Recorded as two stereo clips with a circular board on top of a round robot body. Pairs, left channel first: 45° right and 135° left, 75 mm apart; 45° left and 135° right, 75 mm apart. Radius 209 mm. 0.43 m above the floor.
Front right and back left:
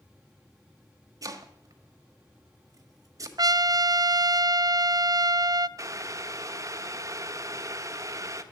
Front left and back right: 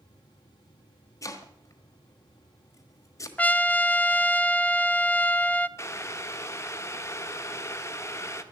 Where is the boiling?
95° left, 1.4 m.